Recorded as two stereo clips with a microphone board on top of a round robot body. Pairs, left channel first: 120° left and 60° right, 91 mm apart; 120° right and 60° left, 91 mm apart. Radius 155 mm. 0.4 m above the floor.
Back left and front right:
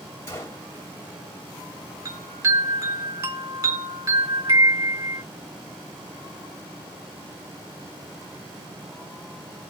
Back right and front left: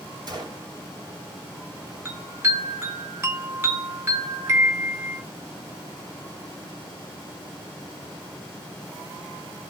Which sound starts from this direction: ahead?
A chime, at 2.0 s.